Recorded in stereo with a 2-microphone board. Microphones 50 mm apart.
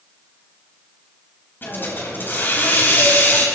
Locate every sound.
1.6 s a hiss: 45° left (ahead or behind), 3.5 m